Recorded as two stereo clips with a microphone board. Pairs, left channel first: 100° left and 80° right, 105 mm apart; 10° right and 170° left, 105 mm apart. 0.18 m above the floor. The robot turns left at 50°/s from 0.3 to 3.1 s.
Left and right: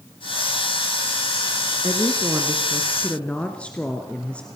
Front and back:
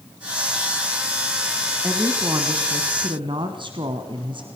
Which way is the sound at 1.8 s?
120° right.